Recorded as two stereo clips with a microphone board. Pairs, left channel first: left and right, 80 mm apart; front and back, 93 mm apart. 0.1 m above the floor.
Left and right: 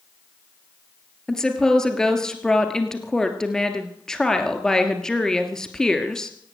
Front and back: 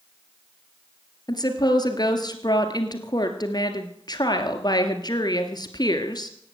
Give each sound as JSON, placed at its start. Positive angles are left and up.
{"t": 1.3, "sound": "a woman speaking", "azimuth_deg": 10, "distance_m": 1.7}